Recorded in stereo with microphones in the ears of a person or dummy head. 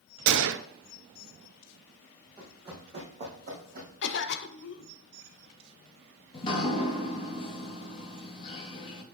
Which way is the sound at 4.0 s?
65° left (ahead or behind).